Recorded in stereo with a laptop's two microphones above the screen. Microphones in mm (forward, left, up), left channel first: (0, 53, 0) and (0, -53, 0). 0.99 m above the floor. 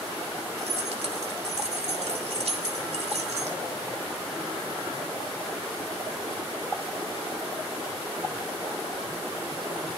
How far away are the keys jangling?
About 3 m.